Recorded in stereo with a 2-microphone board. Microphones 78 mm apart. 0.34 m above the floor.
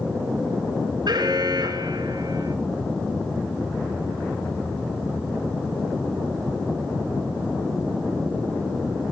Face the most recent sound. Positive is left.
turn(degrees=-65)  # may be behind; listen again after turning